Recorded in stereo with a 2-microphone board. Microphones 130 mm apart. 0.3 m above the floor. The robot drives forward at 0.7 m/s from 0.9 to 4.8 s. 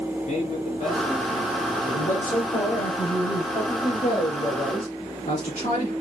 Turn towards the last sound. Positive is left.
turn(degrees=65)  # may be behind; listen again after turning